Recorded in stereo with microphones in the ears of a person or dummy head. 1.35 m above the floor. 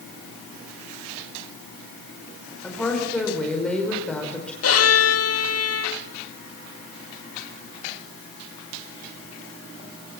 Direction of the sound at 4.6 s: 75° left (ahead or behind).